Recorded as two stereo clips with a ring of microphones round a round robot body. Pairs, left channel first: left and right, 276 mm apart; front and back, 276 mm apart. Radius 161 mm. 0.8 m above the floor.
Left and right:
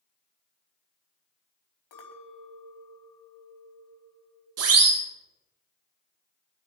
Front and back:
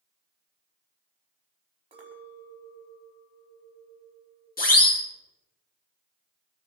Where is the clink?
105° left, 4.5 m.